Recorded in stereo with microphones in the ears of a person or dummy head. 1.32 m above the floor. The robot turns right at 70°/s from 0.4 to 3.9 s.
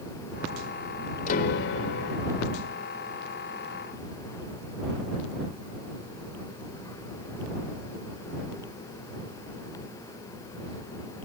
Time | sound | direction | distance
1.3 | a piano | 40° left | ?